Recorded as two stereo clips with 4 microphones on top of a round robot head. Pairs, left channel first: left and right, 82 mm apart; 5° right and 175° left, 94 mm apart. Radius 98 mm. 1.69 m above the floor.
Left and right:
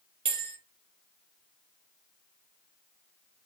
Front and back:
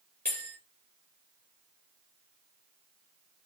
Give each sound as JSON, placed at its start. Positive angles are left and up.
{"t": 0.2, "sound": "a bell", "azimuth_deg": -85, "distance_m": 4.5}